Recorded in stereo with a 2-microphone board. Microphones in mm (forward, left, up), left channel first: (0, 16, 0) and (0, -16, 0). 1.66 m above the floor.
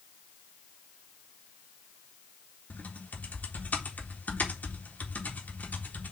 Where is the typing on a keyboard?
60° left (ahead or behind), 1.8 m.